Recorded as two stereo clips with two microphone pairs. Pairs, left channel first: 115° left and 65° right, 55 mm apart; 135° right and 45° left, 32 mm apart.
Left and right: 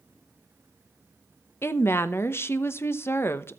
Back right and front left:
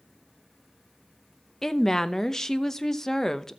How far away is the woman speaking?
About 0.8 m.